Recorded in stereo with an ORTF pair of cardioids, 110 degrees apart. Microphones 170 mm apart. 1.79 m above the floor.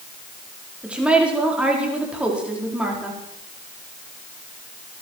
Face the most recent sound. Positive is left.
turn(degrees=-5)